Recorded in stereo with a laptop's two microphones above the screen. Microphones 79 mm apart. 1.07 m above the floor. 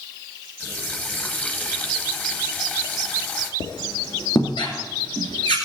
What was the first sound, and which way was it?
A running tap, 20° left (ahead or behind).